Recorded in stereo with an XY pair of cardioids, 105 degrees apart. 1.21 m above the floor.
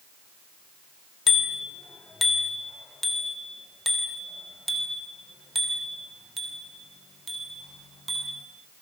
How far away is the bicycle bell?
About 2.5 m.